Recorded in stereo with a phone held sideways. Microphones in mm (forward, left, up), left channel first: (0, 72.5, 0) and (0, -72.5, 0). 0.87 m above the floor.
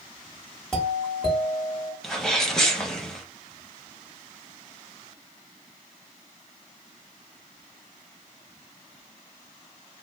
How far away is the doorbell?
About 1.3 m.